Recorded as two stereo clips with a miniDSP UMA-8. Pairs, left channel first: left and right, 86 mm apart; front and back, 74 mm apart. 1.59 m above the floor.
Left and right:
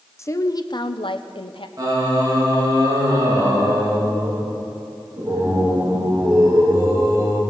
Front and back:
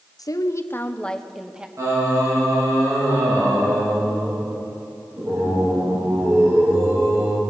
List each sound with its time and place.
0.2 s a woman speaking: 30° left, 0.8 m; by 1.7 s 105° left, 0.9 m
1.8 s singing: 135° right, 2.5 m